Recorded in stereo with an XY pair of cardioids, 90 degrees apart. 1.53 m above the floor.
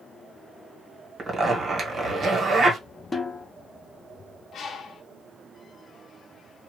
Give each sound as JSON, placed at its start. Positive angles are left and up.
{"t": 1.2, "sound": "a zipper", "azimuth_deg": -50, "distance_m": 1.4}
{"t": 3.1, "sound": "a snare drum", "azimuth_deg": 30, "distance_m": 1.0}
{"t": 4.5, "sound": "a bird", "azimuth_deg": 70, "distance_m": 0.8}